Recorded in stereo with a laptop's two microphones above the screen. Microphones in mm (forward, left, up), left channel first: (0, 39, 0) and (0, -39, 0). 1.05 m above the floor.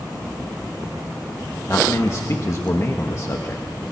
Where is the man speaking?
40° left (ahead or behind), 1.2 m.